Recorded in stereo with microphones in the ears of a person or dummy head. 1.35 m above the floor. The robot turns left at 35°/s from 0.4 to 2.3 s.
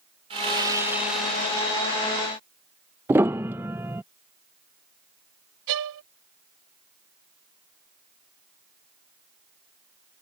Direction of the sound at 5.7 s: 75° right (ahead or behind).